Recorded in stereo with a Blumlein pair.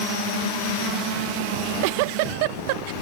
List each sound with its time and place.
1.5 s a giggle: 45° right